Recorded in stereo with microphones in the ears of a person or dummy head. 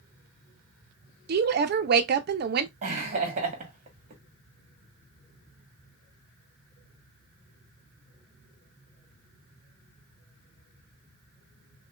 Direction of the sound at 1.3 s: 45° right (ahead or behind).